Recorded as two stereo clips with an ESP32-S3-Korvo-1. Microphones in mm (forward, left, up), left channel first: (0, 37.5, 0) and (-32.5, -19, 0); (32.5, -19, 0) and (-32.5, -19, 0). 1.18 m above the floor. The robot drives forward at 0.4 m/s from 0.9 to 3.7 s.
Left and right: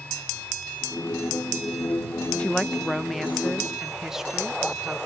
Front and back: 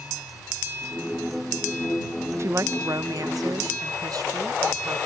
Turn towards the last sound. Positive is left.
turn(degrees=155)